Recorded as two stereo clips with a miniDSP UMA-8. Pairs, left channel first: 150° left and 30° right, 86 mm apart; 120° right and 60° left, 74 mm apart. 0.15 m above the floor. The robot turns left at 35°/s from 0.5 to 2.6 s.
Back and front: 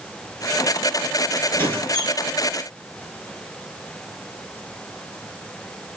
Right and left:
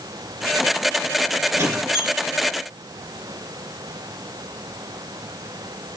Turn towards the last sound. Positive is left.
turn(degrees=60)